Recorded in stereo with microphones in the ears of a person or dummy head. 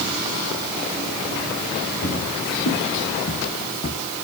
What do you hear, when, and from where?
2.0 s footsteps: 60° left (ahead or behind), 4 m